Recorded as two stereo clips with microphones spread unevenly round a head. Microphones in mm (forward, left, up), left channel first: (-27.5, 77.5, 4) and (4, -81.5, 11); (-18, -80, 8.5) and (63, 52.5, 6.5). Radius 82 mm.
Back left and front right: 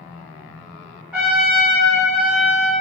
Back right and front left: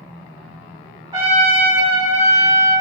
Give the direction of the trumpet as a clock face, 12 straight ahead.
12 o'clock.